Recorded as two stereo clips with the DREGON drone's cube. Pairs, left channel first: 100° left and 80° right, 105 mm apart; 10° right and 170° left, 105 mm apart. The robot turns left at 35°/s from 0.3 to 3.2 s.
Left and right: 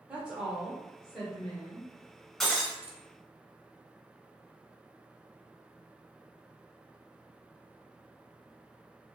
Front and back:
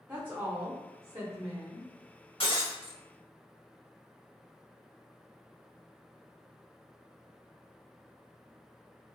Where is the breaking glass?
15° left, 0.8 m; by 3.0 s 5° right, 0.8 m.